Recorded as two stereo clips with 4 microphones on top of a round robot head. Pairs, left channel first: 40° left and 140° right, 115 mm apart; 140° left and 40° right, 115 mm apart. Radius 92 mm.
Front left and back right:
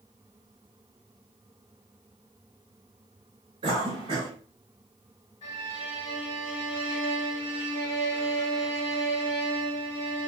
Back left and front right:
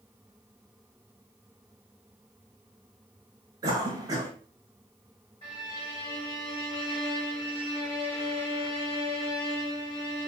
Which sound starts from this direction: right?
A cough, at 3.6 s.